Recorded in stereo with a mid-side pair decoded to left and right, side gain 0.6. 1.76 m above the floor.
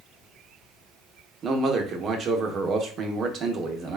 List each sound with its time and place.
1.4 s a man speaking: 45° right, 0.8 m